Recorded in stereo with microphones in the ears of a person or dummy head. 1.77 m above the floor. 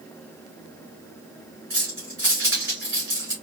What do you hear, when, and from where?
1.7 s keys jangling: 15° right (ahead or behind), 1.5 m